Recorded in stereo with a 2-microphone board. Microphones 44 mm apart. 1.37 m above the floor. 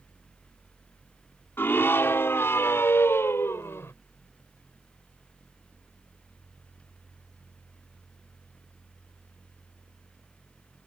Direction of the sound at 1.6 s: 65° left (ahead or behind).